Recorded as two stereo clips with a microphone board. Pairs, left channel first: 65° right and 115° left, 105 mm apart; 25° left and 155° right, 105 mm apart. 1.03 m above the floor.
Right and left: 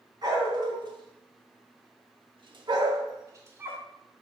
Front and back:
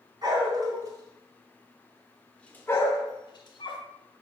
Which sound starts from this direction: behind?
A dog barking, at 0.2 s.